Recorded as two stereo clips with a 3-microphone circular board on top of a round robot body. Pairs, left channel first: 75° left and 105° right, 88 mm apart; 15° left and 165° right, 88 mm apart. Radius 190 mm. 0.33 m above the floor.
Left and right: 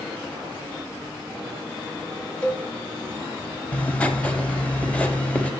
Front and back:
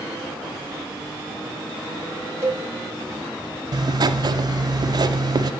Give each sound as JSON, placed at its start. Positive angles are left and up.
{"t": 2.4, "sound": "a cowbell", "azimuth_deg": 145, "distance_m": 1.8}
{"t": 3.7, "sound": "writing", "azimuth_deg": 150, "distance_m": 0.5}